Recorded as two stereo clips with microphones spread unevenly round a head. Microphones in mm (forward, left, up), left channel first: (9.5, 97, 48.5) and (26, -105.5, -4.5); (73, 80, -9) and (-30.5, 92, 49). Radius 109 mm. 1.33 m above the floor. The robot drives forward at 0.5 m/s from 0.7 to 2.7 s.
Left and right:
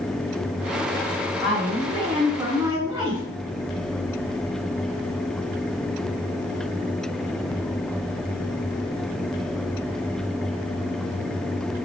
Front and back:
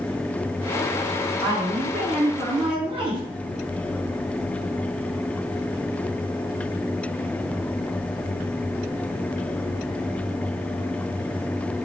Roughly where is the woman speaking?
Behind.